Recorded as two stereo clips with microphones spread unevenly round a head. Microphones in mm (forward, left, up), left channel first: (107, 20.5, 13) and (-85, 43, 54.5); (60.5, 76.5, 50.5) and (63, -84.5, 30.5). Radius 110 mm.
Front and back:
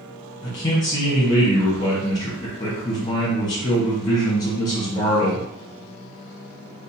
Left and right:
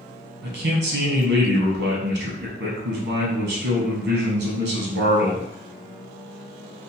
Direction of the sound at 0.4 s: 85° right.